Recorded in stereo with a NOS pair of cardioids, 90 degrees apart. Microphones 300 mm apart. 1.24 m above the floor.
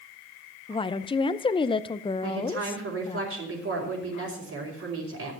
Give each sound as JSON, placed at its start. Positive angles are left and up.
{"t": 0.7, "sound": "a woman speaking", "azimuth_deg": 15, "distance_m": 0.6}
{"t": 2.2, "sound": "a woman speaking", "azimuth_deg": -50, "distance_m": 4.5}